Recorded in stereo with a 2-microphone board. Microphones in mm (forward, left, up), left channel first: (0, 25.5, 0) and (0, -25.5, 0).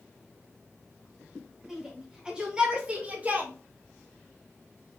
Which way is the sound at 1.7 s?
10° right (ahead or behind).